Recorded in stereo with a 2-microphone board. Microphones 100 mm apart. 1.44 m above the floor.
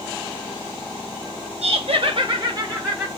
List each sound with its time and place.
1.6 s laughter: 80° right, 1.7 m; by 3.1 s 25° right (ahead or behind), 2 m